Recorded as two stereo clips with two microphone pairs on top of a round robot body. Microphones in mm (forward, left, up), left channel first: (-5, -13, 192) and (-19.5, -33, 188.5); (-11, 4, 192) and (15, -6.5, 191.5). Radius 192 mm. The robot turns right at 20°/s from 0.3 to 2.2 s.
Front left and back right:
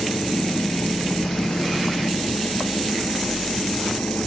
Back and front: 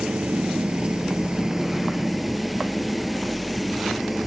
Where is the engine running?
25° left; by 4.3 s 65° left.